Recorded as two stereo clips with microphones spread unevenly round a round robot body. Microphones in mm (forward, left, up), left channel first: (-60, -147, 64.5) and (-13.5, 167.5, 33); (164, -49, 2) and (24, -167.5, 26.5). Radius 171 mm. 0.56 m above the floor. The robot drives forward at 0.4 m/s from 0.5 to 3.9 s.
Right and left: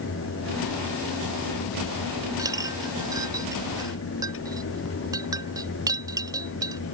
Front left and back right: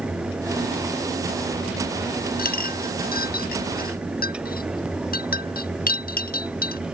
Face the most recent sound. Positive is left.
turn(degrees=0)